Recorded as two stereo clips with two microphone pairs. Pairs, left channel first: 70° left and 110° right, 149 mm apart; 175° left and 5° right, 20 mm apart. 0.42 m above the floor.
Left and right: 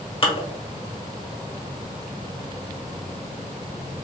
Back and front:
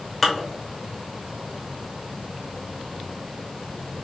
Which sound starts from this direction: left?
Dishes clattering, at 0.2 s.